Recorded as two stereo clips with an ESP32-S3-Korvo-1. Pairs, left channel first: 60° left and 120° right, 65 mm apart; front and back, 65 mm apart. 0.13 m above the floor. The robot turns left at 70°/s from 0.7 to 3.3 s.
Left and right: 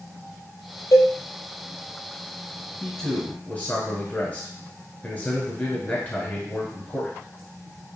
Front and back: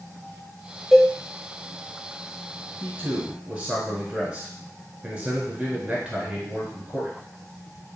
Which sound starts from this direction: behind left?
A man speaking, at 2.8 s.